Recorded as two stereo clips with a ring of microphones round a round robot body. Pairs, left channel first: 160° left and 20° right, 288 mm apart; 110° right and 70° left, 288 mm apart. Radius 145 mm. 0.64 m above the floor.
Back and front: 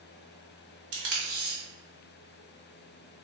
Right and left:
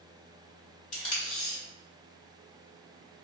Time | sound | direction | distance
0.9 | tape being pulled | 45° right | 1.4 m